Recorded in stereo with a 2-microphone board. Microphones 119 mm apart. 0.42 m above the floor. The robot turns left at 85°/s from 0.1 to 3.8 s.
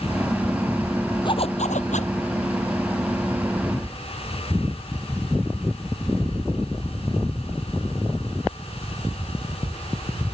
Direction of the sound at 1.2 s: 140° left.